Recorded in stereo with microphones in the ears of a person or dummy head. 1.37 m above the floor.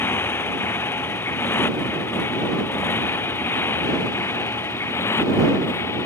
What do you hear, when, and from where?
0.0 s a motorcycle: 15° left (ahead or behind); by 6.0 s 20° left (ahead or behind)